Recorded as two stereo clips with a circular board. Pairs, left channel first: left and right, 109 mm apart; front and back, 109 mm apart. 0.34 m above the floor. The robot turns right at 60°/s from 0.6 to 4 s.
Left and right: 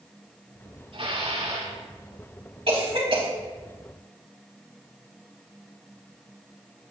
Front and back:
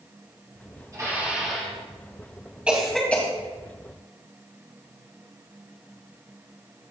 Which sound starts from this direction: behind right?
Dishes clattering, at 0.9 s.